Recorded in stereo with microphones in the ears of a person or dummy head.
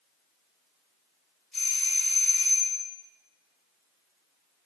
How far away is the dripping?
I don't hear dripping.